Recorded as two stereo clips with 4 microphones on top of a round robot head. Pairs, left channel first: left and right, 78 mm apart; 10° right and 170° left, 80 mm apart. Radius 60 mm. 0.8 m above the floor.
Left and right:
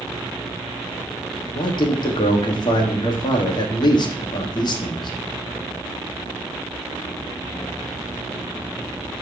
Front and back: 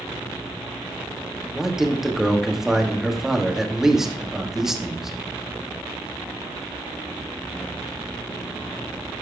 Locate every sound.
1.6 s a man speaking: 85° left, 1.7 m